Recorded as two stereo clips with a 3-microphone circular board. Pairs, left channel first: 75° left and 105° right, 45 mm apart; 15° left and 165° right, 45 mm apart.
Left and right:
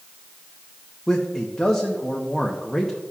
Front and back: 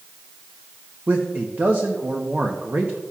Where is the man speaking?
150° left, 0.8 m.